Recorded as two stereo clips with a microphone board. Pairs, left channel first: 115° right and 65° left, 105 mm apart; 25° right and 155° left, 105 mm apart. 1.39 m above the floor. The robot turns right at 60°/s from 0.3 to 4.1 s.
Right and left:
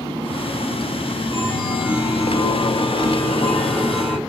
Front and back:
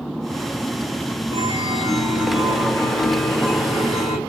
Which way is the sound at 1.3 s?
Straight behind.